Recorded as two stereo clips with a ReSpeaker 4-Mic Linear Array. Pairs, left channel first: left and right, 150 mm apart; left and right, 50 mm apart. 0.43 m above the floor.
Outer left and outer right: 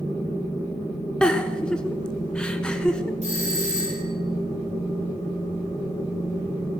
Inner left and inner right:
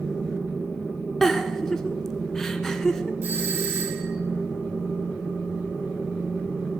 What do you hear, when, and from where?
1.2 s a giggle: 5° left (ahead or behind), 0.9 m
3.2 s a doorbell: 45° right (ahead or behind), 6 m